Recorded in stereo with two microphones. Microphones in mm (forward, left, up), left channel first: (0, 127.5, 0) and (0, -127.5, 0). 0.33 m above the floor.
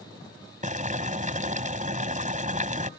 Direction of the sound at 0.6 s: 30° right (ahead or behind).